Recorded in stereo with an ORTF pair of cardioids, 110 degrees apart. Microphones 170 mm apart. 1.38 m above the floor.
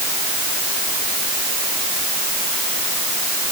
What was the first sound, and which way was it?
Only background noise.